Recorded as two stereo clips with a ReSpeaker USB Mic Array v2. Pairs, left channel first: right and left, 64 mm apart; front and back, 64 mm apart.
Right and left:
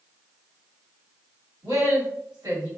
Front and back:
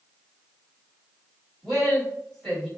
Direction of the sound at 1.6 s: 85° left.